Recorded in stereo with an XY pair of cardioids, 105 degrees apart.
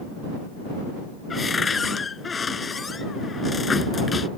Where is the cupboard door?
30° left.